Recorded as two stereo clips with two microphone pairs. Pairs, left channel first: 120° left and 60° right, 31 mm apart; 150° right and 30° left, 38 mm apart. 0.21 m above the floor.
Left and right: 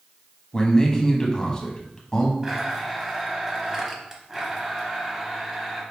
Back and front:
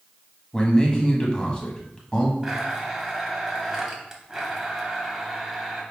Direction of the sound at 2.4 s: 20° right.